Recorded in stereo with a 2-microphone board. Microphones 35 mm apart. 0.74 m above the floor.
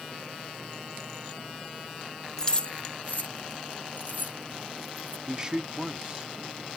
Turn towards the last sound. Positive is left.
turn(degrees=-25)  # may be behind; listen again after turning